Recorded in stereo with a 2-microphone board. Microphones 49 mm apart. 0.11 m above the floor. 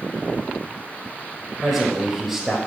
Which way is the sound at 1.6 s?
5° right (ahead or behind).